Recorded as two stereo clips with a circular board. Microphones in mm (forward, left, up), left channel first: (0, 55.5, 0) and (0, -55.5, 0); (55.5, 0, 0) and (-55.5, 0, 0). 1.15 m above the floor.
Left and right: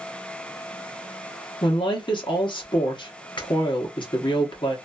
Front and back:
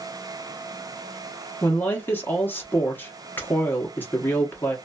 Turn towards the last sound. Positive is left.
turn(degrees=65)